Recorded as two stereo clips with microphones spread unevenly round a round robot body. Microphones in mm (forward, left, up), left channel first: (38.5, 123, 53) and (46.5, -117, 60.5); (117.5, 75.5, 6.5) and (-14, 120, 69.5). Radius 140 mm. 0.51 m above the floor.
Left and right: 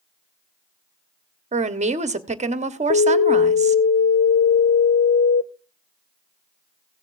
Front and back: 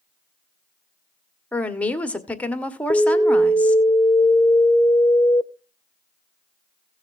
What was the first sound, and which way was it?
A woman speaking, 45° right.